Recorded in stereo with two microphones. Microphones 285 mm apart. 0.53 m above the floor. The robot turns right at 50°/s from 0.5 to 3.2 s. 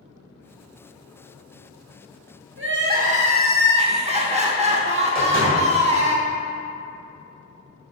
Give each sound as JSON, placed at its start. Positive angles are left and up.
{"t": 2.6, "sound": "crying", "azimuth_deg": -60, "distance_m": 0.7}
{"t": 5.2, "sound": "a door slam", "side_deg": -30, "distance_m": 1.9}